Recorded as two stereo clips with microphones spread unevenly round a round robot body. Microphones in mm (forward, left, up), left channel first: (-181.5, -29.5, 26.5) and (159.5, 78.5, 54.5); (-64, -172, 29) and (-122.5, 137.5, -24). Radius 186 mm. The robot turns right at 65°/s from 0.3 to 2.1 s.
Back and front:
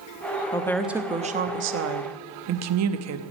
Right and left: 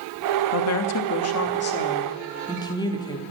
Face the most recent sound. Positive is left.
turn(degrees=5)